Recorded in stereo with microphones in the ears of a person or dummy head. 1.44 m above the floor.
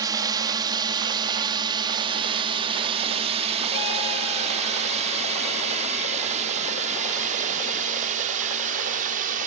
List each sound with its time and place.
0.0 s a drone: 20° right (ahead or behind); by 9.5 s 45° right (ahead or behind)